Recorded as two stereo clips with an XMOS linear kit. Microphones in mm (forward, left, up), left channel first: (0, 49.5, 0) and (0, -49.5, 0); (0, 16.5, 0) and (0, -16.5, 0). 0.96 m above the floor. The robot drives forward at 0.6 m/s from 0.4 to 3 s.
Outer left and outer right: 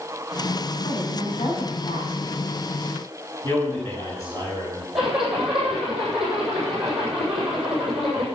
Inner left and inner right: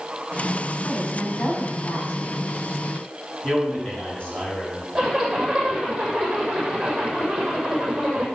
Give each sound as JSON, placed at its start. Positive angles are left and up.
{"t": 0.8, "sound": "a woman speaking", "side_deg": 65, "distance_m": 7.0}
{"t": 3.4, "sound": "a man speaking", "side_deg": 35, "distance_m": 7.0}
{"t": 5.0, "sound": "a zipper", "side_deg": -5, "distance_m": 7.0}